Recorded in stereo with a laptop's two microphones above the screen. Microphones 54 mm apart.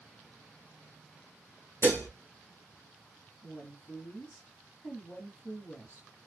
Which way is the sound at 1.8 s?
50° left (ahead or behind).